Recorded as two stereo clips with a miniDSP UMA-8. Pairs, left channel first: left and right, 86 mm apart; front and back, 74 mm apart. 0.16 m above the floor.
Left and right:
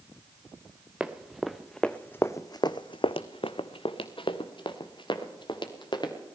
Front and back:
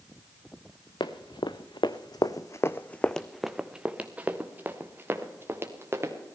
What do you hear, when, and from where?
1.0 s running footsteps: 10° right, 1.2 m; by 6.1 s 125° left, 2.5 m